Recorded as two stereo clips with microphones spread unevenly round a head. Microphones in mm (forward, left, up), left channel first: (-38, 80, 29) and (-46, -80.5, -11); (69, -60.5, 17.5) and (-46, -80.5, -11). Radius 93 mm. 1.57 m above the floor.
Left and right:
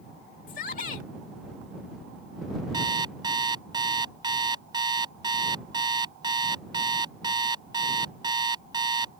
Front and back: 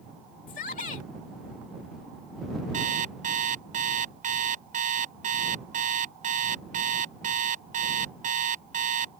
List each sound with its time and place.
0.5 s a shout: 40° left
2.7 s an alarm clock: 160° right